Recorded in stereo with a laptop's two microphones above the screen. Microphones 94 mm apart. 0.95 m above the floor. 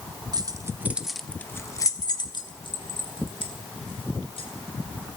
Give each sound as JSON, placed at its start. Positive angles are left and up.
{"t": 0.3, "sound": "keys jangling", "side_deg": -45, "distance_m": 0.9}